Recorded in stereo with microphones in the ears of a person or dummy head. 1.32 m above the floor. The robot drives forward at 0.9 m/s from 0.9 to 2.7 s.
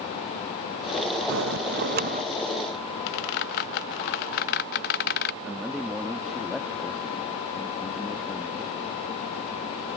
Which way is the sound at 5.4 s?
Centre (ahead or behind).